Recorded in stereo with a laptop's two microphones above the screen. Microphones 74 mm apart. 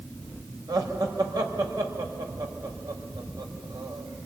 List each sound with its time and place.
0.7 s laughter: 65° right (ahead or behind), 5.5 m